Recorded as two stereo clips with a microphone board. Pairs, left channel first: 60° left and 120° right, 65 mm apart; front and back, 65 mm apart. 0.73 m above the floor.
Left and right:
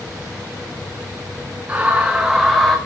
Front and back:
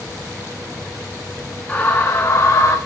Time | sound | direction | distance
1.7 | a scream | 60° right | 1.2 m